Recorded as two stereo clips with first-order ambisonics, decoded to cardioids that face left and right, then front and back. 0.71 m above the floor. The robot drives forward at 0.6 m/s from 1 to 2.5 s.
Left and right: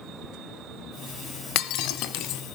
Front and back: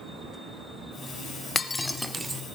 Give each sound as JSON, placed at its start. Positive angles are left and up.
{"t": 1.6, "sound": "breaking glass", "azimuth_deg": 70, "distance_m": 1.0}